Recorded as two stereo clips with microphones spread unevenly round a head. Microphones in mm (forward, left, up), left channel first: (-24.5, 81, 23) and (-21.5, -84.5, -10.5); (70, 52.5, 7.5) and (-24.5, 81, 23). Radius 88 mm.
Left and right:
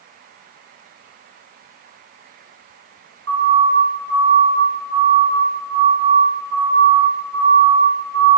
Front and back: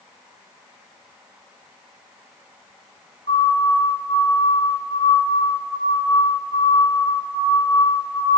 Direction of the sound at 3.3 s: 75° right.